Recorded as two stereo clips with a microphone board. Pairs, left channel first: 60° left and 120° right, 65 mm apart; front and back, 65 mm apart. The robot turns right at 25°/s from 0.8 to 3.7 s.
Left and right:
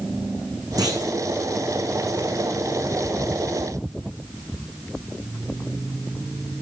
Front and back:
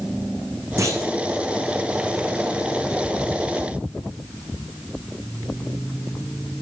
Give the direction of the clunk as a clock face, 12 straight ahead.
5 o'clock.